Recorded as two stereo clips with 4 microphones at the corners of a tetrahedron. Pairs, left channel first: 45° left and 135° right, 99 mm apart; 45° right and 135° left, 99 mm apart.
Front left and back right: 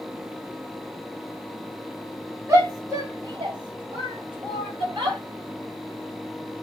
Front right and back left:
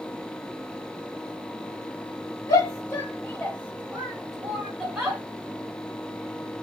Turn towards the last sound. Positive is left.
turn(degrees=-155)